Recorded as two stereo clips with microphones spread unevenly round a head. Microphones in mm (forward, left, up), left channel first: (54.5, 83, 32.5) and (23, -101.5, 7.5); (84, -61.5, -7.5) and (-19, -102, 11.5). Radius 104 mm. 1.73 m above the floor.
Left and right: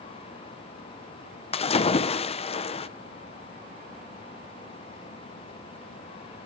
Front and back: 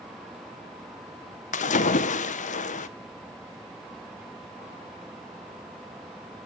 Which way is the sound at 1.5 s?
25° left.